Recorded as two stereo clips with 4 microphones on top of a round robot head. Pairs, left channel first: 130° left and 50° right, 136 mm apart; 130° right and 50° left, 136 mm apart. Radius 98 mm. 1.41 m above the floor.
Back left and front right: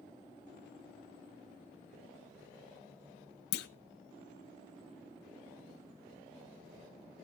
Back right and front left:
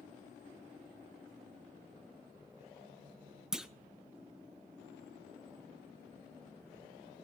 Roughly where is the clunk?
Behind left.